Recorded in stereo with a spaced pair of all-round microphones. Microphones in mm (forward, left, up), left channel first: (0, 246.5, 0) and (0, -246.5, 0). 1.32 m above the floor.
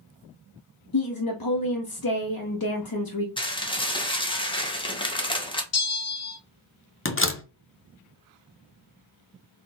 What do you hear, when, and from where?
0.9 s a woman speaking: 45° left (ahead or behind), 0.6 m
3.4 s dishes clattering: 10° left (ahead or behind), 0.7 m
5.7 s a bell: 30° left (ahead or behind), 0.7 m
7.0 s a door slam: 25° left (ahead or behind), 0.5 m